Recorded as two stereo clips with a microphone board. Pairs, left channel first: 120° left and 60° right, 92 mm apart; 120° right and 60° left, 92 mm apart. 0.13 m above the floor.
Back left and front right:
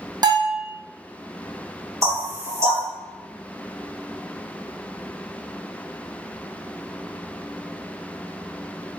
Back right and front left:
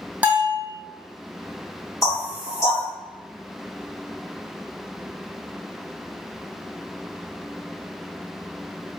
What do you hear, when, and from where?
0.2 s a bell: 15° right, 1.0 m
2.0 s knocking: 95° right, 1.7 m